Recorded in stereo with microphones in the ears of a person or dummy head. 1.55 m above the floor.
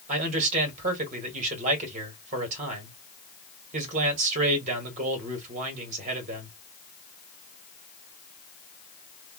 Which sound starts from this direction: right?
A man speaking, at 0.1 s.